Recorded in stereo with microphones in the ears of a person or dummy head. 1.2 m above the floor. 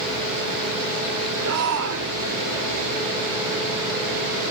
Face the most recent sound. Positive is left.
turn(degrees=-85)